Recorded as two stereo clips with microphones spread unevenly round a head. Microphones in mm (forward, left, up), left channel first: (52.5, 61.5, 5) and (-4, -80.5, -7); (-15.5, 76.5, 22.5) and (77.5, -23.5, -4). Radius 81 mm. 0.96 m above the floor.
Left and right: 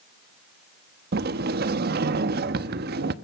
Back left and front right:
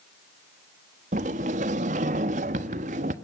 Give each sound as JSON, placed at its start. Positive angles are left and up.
{"t": 1.1, "sound": "a sliding door", "azimuth_deg": -90, "distance_m": 1.1}